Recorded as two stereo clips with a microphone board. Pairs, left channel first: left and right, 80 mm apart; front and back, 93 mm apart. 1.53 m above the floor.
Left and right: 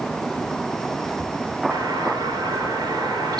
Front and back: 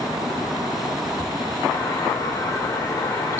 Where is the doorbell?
60° right, 6 m.